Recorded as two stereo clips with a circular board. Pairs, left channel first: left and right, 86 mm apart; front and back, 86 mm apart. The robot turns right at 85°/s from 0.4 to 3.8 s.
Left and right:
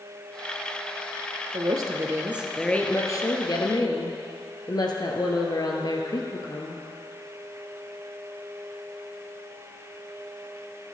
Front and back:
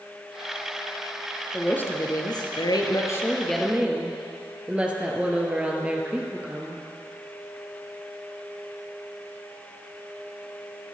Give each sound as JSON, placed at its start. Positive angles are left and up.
{"t": 1.5, "sound": "a woman speaking", "azimuth_deg": -85, "distance_m": 2.0}